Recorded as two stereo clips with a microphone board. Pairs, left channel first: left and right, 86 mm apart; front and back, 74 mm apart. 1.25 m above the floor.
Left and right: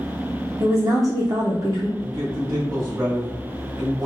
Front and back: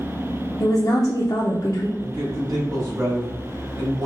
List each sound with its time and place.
0.6 s a woman speaking: 40° right, 0.6 m
2.0 s a man speaking: 135° right, 1.6 m